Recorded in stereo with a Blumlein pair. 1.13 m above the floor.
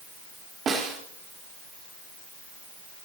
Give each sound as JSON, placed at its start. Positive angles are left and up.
{"t": 0.7, "sound": "a snare drum", "azimuth_deg": -20, "distance_m": 3.5}